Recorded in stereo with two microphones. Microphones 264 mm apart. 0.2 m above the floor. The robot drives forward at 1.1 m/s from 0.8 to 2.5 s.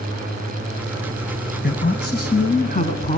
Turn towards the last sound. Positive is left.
turn(degrees=30)  # may be behind; listen again after turning